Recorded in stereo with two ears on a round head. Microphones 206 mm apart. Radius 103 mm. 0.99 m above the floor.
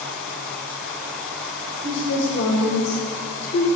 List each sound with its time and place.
1.8 s a woman speaking: 55° left (ahead or behind), 1.8 m; by 3.7 s 35° left (ahead or behind), 0.9 m